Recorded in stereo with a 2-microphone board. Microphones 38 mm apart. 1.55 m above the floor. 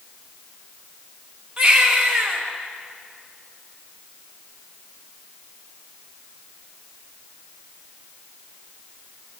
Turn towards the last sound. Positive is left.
turn(degrees=-15)  # may be behind; listen again after turning